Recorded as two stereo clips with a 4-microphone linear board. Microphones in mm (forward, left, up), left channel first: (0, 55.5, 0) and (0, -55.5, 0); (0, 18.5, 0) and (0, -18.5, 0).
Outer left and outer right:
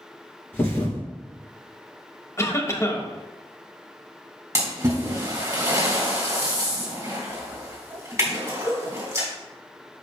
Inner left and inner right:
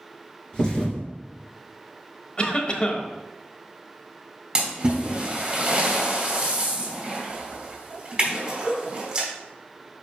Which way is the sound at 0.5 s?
20° left (ahead or behind).